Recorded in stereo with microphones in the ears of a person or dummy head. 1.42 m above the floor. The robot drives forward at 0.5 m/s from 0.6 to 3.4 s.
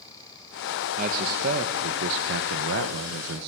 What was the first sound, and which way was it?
A man speaking, 40° right (ahead or behind).